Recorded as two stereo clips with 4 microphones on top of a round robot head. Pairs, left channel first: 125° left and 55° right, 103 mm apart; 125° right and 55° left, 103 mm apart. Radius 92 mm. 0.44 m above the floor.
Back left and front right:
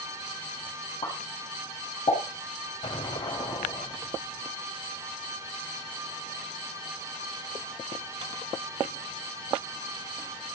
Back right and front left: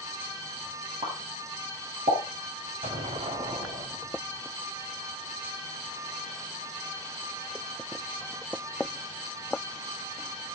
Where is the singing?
I don't hear singing.